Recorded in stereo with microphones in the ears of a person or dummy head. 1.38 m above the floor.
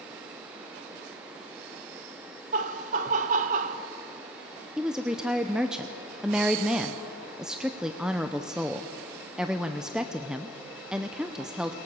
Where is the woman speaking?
5° right (ahead or behind), 0.7 m.